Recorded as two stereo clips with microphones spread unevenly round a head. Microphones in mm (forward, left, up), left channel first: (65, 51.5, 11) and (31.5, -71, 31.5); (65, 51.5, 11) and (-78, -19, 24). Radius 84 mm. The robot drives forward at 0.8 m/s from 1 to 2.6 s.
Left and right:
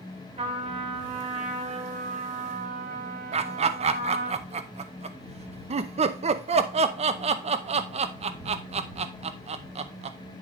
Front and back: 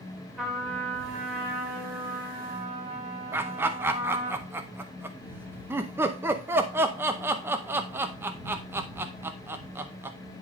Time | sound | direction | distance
0.4 | a trumpet | 65° right | 3 m
3.3 | laughter | 75° right | 0.6 m